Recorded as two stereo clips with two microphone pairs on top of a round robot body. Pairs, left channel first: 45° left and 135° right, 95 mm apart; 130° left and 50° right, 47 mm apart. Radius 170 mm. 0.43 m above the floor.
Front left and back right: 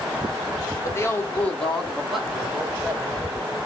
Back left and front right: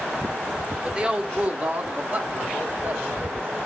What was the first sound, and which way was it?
A woman speaking, straight ahead.